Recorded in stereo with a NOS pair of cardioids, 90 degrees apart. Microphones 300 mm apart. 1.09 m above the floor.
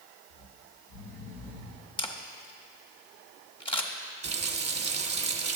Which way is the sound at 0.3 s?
65° left.